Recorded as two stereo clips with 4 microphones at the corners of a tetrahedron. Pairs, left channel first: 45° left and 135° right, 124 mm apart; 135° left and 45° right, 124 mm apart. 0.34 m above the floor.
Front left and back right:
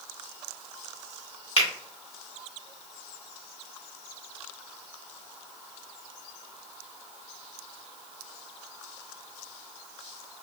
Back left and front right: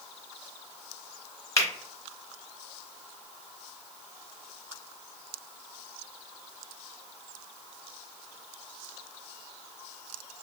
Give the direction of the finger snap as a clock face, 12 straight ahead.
10 o'clock.